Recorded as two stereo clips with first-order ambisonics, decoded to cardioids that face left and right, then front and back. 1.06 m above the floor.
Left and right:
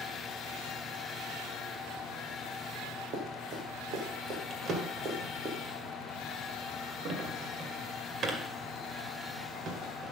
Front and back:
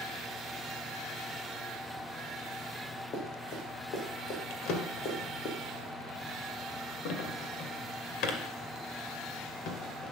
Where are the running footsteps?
50° right, 4 m; by 5.5 s 25° right, 3.5 m.